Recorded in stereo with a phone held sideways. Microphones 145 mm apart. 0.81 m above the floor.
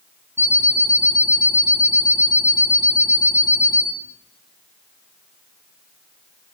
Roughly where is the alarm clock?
Centre.